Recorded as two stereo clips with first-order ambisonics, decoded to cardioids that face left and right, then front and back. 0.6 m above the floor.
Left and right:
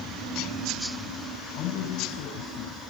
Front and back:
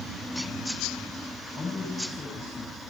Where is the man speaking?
65° left, 3.5 m; by 2.8 s 70° left, 4 m.